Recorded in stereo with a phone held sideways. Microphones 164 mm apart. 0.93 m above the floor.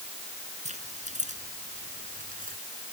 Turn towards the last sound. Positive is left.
turn(degrees=-55)  # may be behind; listen again after turning